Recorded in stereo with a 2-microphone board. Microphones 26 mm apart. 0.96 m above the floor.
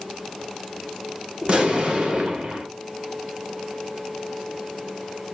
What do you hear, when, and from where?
1.4 s an explosion: 45° right (ahead or behind), 0.8 m